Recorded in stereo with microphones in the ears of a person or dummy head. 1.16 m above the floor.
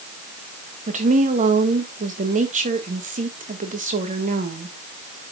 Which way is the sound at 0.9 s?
35° right (ahead or behind).